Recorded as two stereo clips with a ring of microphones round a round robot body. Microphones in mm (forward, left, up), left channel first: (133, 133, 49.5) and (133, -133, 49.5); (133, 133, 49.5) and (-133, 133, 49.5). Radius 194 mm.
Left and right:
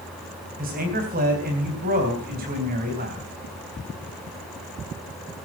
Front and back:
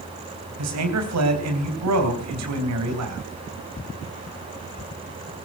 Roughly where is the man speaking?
Behind right.